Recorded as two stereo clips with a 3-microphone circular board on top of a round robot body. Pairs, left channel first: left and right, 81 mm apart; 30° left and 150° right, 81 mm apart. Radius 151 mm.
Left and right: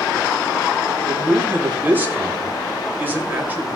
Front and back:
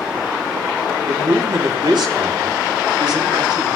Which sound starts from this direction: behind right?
A man speaking, at 1.1 s.